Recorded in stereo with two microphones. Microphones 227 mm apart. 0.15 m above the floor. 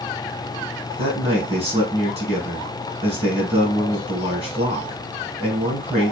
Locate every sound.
1.0 s a man speaking: 25° right (ahead or behind), 1.3 m